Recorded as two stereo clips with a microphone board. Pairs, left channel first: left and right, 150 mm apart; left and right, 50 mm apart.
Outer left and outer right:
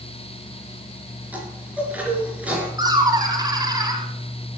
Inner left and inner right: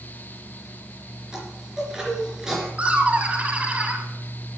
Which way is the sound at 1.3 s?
10° right (ahead or behind).